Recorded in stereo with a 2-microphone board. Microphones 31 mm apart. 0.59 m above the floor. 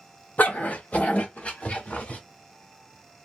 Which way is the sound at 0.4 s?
65° left (ahead or behind).